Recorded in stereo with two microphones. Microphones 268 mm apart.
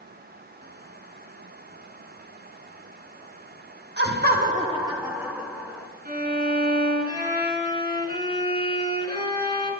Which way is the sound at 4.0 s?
35° right (ahead or behind).